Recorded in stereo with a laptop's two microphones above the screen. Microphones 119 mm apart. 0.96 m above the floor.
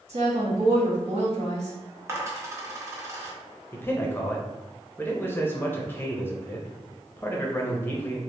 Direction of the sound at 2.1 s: 25° right (ahead or behind).